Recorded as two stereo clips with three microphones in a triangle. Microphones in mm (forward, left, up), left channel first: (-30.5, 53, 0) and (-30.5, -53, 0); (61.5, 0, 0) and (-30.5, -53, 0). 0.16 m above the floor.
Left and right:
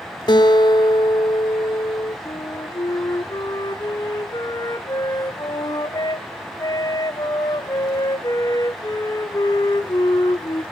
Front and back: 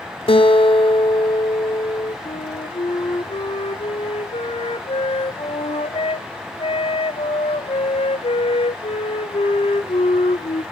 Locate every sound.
0.3 s a guitar: 50° left, 0.9 m
2.2 s a flute: 40° left, 0.7 m